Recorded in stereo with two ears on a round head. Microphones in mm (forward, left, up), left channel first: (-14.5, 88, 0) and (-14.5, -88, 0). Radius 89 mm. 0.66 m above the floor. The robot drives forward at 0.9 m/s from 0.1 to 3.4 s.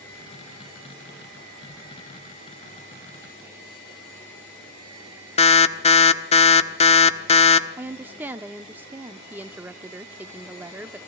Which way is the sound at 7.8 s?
10° right (ahead or behind).